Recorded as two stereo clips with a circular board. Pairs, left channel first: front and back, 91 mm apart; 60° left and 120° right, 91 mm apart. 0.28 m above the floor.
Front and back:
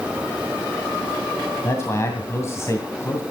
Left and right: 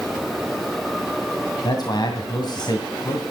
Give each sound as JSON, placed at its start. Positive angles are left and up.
{"t": 1.6, "sound": "a man speaking", "azimuth_deg": 50, "distance_m": 2.0}